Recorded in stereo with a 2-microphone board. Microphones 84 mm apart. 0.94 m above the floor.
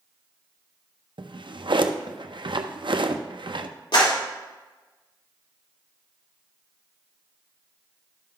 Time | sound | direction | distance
1.2 | a drawer | 75° right (ahead or behind) | 0.5 m
3.9 | a clap | 75° left (ahead or behind) | 2.5 m